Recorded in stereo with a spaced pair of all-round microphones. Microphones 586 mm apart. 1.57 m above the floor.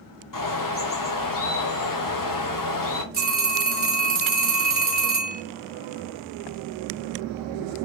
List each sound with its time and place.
0.3 s a bird: 35° left (ahead or behind), 0.5 m
3.1 s a phone ringing: 15° right (ahead or behind), 0.7 m